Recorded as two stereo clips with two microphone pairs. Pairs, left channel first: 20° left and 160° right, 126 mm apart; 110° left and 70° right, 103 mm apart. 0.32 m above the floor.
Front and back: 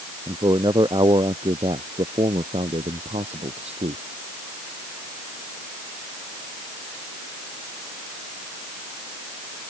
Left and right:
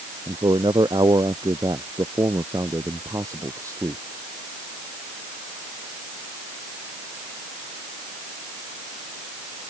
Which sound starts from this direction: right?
A man speaking, at 0.3 s.